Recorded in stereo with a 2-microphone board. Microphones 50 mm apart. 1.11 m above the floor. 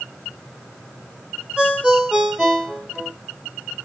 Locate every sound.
1.6 s a ringtone: 20° right (ahead or behind), 2 m